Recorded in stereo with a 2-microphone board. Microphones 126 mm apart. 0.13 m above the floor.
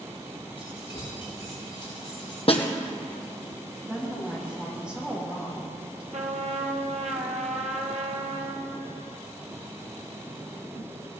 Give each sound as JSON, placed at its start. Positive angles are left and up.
{"t": 0.6, "sound": "keys jangling", "side_deg": 50, "distance_m": 7.0}
{"t": 2.5, "sound": "a snare drum", "side_deg": 50, "distance_m": 1.6}
{"t": 3.9, "sound": "a woman speaking", "side_deg": -5, "distance_m": 6.0}
{"t": 6.1, "sound": "a trumpet", "side_deg": -70, "distance_m": 1.7}